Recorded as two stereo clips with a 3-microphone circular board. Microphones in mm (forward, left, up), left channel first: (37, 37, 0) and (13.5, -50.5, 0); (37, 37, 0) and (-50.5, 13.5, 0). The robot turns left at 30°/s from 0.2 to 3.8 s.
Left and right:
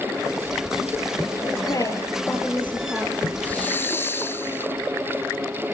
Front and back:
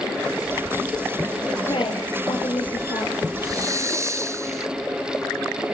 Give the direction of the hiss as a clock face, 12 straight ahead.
7 o'clock.